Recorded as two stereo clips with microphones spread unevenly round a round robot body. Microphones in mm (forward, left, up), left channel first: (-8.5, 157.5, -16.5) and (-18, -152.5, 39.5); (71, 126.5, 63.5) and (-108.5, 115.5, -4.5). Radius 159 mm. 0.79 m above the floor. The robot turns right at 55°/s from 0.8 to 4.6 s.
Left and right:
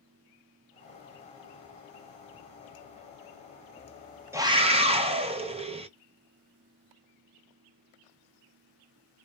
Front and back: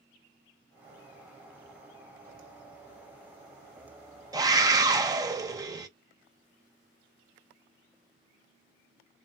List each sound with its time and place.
4.3 s a scream: straight behind, 0.6 m; by 5.9 s 170° right, 0.6 m